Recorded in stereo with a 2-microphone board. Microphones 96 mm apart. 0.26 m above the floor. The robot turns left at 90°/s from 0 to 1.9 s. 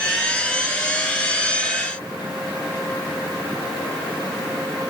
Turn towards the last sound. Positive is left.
No sound to turn to.